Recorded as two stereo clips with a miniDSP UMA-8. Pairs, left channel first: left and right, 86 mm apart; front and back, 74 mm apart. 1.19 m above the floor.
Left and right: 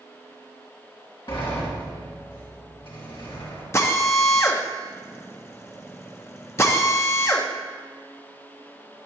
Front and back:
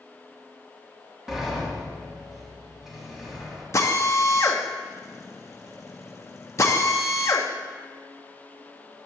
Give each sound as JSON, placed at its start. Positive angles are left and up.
{"t": 1.3, "sound": "a sliding door", "azimuth_deg": 95, "distance_m": 2.5}
{"t": 3.7, "sound": "a drill", "azimuth_deg": 40, "distance_m": 0.8}